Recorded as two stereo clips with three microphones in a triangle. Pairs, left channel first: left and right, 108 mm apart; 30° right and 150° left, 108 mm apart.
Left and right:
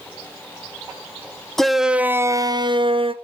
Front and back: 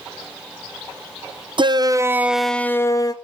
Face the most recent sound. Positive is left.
turn(degrees=-75)